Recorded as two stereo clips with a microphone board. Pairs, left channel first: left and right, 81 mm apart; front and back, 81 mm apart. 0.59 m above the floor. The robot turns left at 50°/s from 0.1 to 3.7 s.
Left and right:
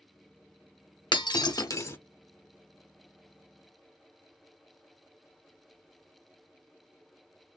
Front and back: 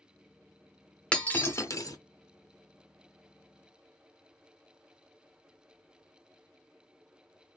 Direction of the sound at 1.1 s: 75° left.